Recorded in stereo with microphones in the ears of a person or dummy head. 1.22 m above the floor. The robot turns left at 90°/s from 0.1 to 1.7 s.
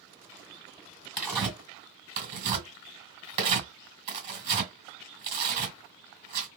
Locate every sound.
1.2 s tearing paper: 5° left (ahead or behind), 1.7 m; by 6.5 s 35° right (ahead or behind), 1.7 m